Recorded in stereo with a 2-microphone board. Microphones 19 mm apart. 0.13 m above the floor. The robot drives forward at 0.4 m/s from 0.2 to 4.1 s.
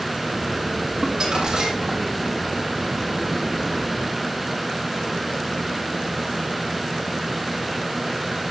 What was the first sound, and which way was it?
Crumpling, 35° right (ahead or behind).